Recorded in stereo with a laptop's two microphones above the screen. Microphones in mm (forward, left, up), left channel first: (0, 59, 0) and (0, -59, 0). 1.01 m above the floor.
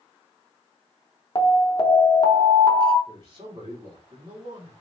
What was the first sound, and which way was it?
An alarm, 40° left (ahead or behind).